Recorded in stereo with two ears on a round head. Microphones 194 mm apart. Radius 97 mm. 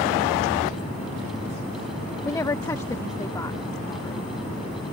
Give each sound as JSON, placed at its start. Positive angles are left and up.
{"t": 2.2, "sound": "a woman speaking", "side_deg": 15}